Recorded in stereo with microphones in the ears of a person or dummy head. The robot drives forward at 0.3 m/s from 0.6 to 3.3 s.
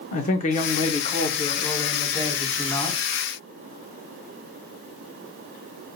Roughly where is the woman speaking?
Left.